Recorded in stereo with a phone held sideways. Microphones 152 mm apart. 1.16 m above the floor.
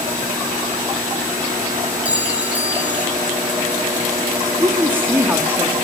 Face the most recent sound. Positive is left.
turn(degrees=-15)  # may be behind; listen again after turning